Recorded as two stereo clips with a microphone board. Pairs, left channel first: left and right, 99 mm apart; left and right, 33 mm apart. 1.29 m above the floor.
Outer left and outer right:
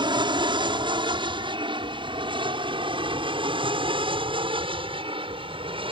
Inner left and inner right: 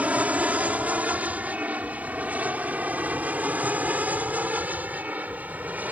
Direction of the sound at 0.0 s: 50° right (ahead or behind).